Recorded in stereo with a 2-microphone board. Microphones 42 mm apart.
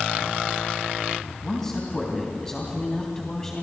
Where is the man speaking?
15° left (ahead or behind), 3 m.